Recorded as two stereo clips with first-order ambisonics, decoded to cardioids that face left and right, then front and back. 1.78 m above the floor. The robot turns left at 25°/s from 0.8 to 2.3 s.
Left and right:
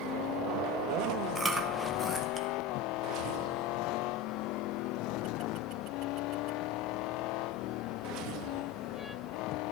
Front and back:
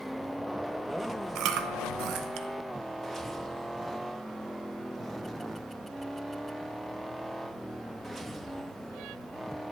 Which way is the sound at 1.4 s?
170° right.